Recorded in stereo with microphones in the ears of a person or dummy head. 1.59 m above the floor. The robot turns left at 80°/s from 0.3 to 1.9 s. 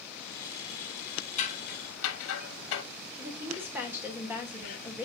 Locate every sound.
1.4 s scissors: 40° left (ahead or behind), 1.0 m; by 2.8 s 80° left, 1.0 m
3.2 s a woman speaking: 5° right (ahead or behind), 1.7 m